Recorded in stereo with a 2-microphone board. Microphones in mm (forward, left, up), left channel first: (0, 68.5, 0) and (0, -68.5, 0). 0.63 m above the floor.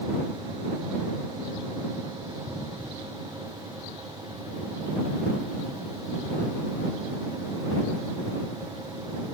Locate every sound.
Only background noise.